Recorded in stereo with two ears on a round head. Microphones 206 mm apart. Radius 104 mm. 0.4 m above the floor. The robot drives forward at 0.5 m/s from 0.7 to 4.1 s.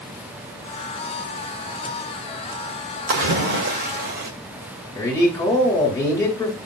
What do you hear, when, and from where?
3.1 s a splash: 50° right (ahead or behind), 1.9 m; by 4.3 s 45° right (ahead or behind), 1.9 m
5.0 s a man speaking: 15° left (ahead or behind), 2 m